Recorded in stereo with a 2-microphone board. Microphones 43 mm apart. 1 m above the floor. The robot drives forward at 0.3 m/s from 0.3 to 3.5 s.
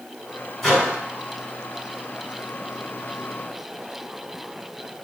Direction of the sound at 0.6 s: 10° left (ahead or behind).